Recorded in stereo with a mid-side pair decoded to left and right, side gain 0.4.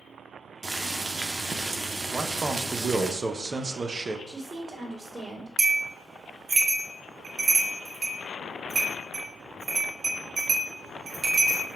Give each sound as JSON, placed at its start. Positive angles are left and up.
{"t": 0.6, "sound": "boiling", "azimuth_deg": -30, "distance_m": 0.7}
{"t": 2.1, "sound": "a man speaking", "azimuth_deg": -35, "distance_m": 0.6}
{"t": 4.3, "sound": "a woman speaking", "azimuth_deg": -15, "distance_m": 2.0}
{"t": 5.6, "sound": "a bell", "azimuth_deg": -40, "distance_m": 1.2}